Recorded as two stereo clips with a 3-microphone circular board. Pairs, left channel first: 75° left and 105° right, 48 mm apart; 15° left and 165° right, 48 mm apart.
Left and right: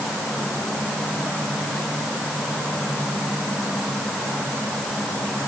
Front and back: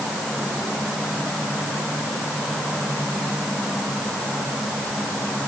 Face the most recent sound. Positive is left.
No sound to turn to.